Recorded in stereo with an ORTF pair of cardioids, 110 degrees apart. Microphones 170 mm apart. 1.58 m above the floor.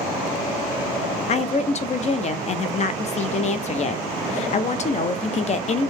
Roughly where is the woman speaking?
Ahead left.